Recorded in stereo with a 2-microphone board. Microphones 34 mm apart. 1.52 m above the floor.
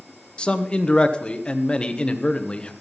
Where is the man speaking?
30° left (ahead or behind), 1.1 m.